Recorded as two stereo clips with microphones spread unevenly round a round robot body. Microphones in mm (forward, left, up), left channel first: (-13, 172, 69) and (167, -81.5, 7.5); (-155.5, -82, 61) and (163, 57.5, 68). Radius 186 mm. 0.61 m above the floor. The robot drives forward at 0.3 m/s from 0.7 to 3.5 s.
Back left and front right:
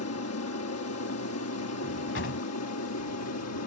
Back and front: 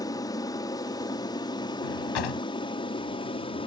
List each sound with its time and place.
0.0 s an aircraft: 135° left; by 3.7 s 140° left
1.8 s a drawer: 175° right